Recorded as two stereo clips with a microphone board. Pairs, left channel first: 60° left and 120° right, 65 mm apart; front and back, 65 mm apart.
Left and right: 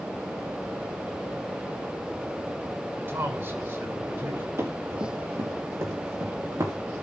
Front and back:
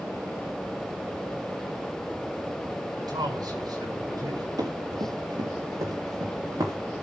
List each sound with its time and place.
3.0 s a man speaking: 170° right, 6 m
4.6 s running footsteps: 165° right, 5.5 m; by 6.8 s 150° right, 6 m